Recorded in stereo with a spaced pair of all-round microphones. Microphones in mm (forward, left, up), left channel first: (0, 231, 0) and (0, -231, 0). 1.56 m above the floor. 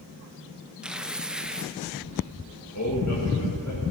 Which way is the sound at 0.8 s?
Centre (ahead or behind).